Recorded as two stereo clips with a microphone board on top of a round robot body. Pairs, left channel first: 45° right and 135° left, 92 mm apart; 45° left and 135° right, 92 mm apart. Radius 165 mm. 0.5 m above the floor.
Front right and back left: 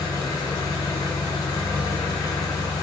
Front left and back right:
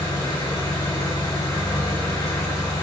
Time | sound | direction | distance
0.0 | an engine running | 5° right | 1.1 m